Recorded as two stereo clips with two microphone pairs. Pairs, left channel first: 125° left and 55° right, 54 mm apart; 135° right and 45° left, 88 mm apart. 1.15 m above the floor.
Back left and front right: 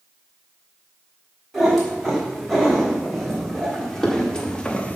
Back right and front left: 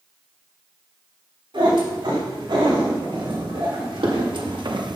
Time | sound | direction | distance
1.5 | a cat meowing | 40° left | 4.5 m